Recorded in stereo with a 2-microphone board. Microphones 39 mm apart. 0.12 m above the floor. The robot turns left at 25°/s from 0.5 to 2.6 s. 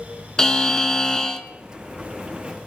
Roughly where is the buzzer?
Centre.